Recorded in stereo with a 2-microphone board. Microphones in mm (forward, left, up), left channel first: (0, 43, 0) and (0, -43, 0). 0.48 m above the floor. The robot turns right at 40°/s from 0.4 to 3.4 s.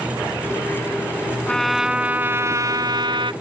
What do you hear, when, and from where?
1.5 s a trumpet: 170° left; by 3.3 s 115° right